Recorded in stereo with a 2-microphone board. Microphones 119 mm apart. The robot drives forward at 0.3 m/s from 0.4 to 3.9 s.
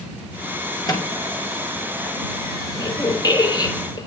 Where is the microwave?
35° left (ahead or behind), 6 m.